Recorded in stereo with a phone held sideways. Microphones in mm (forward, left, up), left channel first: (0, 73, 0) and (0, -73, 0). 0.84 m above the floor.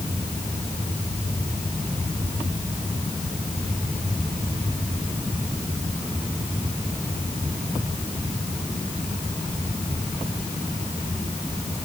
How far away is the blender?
I don't hear a blender.